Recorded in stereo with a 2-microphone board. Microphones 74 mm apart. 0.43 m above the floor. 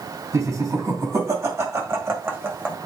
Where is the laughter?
50° right (ahead or behind), 3 m; by 2.8 s 25° right (ahead or behind), 1.6 m.